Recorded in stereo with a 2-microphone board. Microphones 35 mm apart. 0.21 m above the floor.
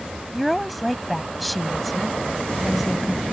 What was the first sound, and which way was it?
A woman speaking, centre (ahead or behind).